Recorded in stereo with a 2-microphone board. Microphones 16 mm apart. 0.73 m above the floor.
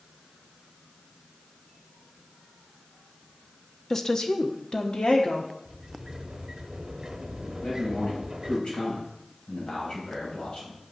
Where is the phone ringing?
No phone ringing in this recording.